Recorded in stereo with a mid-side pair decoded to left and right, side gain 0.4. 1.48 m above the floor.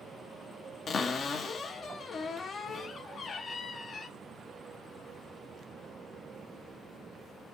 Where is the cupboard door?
55° left, 0.7 m.